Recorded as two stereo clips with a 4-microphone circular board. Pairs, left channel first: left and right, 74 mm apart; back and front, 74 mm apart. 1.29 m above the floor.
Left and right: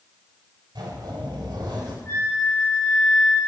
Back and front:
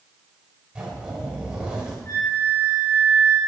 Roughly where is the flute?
Behind left.